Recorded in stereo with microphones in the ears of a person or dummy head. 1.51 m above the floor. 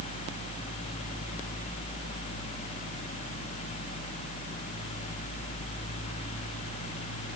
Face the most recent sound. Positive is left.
No sound to turn to.